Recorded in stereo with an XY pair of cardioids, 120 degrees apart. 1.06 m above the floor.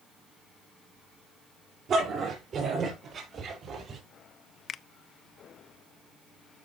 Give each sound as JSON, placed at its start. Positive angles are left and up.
{"t": 1.9, "sound": "a dog barking", "azimuth_deg": -55, "distance_m": 5.5}
{"t": 4.7, "sound": "a finger snap", "azimuth_deg": 45, "distance_m": 0.5}